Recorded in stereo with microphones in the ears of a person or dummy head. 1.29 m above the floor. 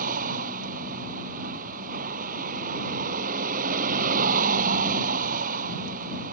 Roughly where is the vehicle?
Right.